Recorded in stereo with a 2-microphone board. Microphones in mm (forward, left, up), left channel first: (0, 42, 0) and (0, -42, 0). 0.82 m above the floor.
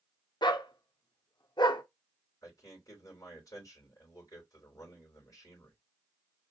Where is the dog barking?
70° left (ahead or behind), 0.6 m.